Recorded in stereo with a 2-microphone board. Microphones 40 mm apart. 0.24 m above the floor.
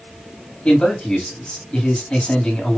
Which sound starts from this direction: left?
A man speaking, at 0.7 s.